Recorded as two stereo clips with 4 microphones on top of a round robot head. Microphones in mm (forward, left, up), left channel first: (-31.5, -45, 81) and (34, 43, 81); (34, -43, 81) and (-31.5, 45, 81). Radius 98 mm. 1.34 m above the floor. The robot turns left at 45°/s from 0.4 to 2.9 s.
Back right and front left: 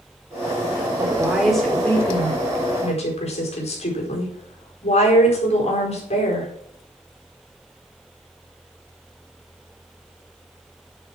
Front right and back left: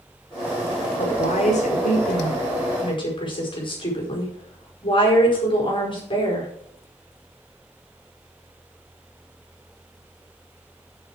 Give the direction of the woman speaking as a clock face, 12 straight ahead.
12 o'clock.